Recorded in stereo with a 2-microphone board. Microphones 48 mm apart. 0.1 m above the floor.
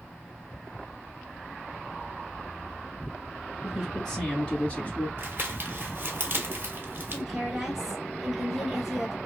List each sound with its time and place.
3.6 s a man speaking: centre (ahead or behind), 1.3 m; by 5.1 s 35° left (ahead or behind), 1.4 m
5.2 s crumpling: 45° right (ahead or behind), 1.0 m
7.1 s a woman speaking: 10° right (ahead or behind), 1.2 m